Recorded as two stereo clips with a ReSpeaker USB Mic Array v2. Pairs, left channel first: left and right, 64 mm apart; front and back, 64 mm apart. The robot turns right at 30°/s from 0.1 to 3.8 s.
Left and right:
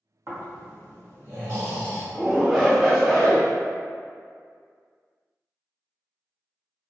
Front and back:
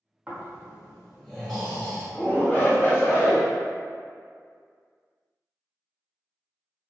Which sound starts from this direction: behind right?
Snoring, at 0.3 s.